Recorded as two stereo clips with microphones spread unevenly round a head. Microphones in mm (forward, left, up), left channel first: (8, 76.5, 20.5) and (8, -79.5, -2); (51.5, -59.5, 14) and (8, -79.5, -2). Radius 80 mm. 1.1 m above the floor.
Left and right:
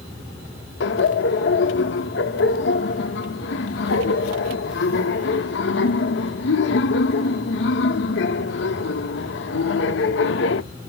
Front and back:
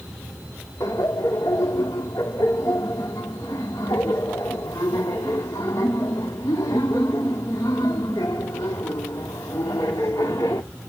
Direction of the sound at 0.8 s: 85° left.